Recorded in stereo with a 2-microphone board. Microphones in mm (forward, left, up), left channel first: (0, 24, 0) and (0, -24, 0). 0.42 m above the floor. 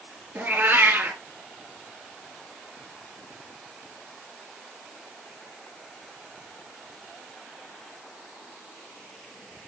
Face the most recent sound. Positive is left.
turn(degrees=-40)  # may be behind; listen again after turning